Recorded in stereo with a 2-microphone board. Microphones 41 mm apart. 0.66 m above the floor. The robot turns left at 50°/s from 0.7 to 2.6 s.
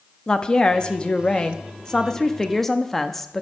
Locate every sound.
0.3 s a woman speaking: 20° left (ahead or behind), 0.5 m; by 3.4 s 5° left (ahead or behind), 0.5 m